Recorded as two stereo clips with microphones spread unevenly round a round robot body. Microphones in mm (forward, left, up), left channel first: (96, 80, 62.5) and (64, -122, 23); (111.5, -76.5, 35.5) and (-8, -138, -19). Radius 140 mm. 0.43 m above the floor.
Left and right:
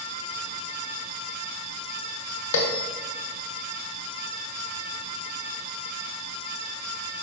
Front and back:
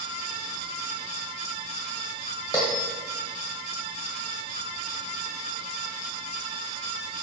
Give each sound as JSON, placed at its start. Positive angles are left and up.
{"t": 2.5, "sound": "a bell", "azimuth_deg": 110, "distance_m": 1.6}